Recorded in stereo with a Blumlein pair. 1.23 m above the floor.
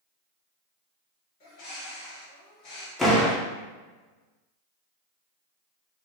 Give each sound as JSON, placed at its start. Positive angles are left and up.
{"t": 1.4, "sound": "a bird", "azimuth_deg": 40, "distance_m": 1.2}
{"t": 3.0, "sound": "a door slam", "azimuth_deg": 10, "distance_m": 0.7}